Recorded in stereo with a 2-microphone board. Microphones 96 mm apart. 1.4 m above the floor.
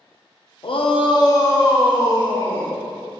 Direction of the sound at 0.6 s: 60° left (ahead or behind).